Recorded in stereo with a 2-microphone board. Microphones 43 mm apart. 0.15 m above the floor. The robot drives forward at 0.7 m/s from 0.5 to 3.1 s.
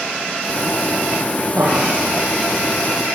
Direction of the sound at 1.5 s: 75° right (ahead or behind).